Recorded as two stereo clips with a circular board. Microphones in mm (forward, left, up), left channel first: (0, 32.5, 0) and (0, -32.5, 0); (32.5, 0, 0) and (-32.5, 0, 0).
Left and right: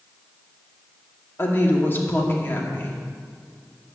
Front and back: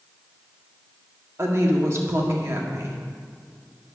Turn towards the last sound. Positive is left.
turn(degrees=140)